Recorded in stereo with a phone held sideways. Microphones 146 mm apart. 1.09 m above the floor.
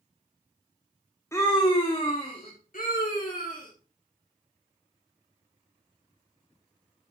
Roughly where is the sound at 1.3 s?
Centre.